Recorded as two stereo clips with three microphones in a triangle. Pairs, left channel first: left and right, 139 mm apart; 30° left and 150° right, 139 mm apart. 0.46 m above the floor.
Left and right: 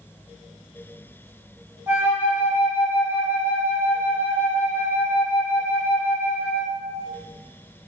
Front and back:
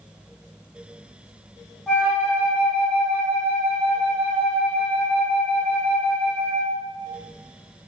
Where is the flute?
50° right, 1.3 m.